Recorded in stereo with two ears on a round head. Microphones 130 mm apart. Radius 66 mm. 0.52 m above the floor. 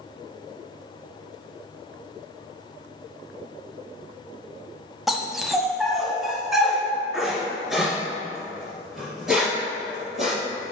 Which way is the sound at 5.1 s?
Centre (ahead or behind).